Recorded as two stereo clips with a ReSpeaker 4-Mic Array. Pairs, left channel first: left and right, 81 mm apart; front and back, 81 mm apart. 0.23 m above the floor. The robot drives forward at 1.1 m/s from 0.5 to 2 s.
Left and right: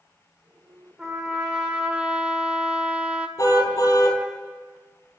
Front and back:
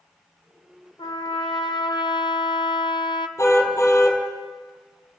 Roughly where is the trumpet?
Ahead.